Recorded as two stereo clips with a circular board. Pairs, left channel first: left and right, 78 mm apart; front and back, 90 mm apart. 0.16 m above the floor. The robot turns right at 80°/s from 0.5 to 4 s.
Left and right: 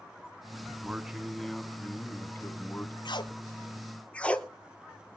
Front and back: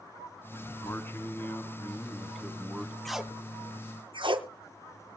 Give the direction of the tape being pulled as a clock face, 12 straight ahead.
9 o'clock.